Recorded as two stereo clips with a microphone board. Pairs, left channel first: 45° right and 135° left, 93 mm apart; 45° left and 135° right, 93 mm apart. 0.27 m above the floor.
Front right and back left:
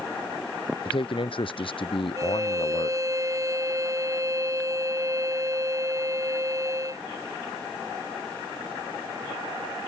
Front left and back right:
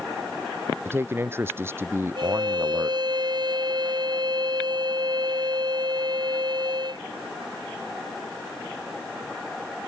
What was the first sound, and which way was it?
A man speaking, 70° right.